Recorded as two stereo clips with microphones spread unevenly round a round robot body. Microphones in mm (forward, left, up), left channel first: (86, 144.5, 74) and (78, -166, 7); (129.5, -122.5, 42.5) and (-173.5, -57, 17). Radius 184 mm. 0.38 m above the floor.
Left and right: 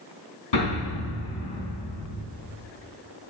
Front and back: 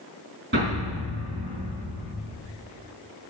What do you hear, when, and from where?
0.5 s an explosion: 105° left, 4 m